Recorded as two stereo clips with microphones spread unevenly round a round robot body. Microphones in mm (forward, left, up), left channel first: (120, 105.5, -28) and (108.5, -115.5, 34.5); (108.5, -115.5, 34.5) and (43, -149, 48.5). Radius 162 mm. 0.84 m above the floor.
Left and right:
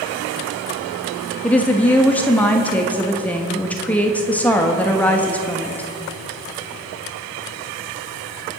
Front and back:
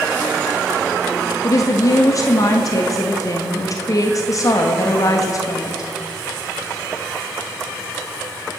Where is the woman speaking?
15° left, 1.3 m.